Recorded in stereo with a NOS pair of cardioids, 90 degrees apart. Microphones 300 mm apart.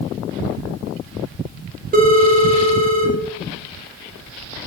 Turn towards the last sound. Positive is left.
turn(degrees=-30)